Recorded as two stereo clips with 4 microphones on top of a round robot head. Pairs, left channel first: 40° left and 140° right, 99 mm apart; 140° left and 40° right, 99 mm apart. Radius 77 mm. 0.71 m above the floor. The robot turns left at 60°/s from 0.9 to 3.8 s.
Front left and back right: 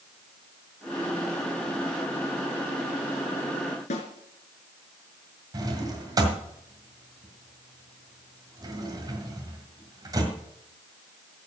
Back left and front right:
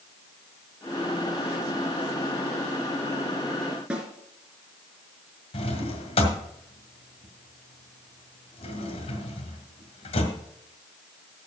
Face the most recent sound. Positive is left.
turn(degrees=165)